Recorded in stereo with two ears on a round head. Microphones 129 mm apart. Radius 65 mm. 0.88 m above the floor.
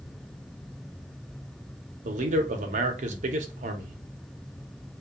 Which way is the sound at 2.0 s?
55° right (ahead or behind).